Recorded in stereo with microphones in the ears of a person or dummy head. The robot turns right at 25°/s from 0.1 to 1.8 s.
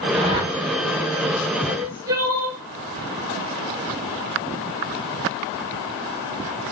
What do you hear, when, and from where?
0.1 s a whoosh: 35° right (ahead or behind), 5 m; by 0.5 s 25° right (ahead or behind), 5 m
1.7 s crying: 15° right (ahead or behind), 2.5 m; by 2.6 s 20° right (ahead or behind), 2.5 m